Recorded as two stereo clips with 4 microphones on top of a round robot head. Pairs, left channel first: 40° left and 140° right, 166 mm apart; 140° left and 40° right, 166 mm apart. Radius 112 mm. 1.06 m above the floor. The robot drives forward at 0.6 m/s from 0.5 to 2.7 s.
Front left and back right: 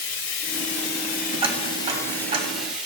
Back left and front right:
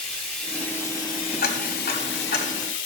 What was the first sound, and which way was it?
Running water, 50° left.